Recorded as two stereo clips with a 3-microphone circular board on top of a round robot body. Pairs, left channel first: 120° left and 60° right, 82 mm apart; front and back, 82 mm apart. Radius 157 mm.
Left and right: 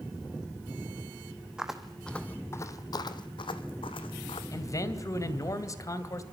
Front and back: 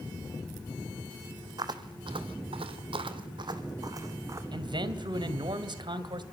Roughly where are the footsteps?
Behind right.